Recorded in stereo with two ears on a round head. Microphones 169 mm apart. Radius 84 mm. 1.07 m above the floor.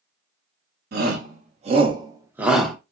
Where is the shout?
50° right (ahead or behind), 1.1 m; by 2.8 s 5° left (ahead or behind), 0.8 m.